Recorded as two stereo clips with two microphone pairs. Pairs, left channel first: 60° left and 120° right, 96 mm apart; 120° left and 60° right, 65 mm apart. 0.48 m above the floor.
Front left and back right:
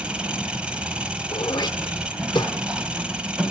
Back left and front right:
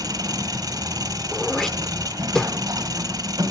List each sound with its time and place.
0.0 s an engine running: 40° right, 1.4 m
1.3 s throat clearing: 40° left, 0.8 m